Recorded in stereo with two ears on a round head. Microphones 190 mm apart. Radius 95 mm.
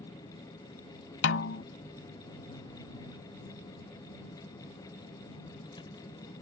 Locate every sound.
0.0 s a vehicle: 20° left (ahead or behind)
1.2 s a snare drum: 60° left (ahead or behind)